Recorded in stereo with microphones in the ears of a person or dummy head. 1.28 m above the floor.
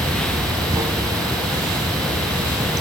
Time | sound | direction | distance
0.0 | running water | 20° right (ahead or behind) | ?